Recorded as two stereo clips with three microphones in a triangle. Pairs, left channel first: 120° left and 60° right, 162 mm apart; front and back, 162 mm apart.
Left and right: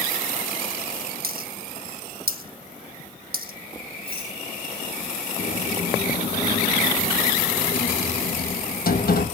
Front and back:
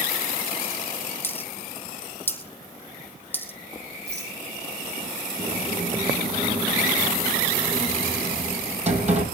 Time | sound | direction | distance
1.2 | a dropped coin | 80° right | 1.5 m
4.1 | a rattle | 175° left | 8 m
5.4 | a sliding door | 135° left | 3 m